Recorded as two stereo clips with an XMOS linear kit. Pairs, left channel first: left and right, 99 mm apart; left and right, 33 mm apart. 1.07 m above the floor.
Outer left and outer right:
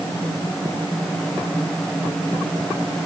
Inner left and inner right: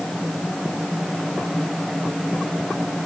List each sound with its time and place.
Only background noise.